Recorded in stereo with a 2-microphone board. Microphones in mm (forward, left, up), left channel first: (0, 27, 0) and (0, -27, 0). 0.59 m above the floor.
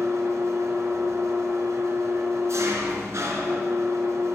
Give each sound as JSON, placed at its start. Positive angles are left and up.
{"t": 0.0, "sound": "an engine running", "side_deg": -65, "distance_m": 1.7}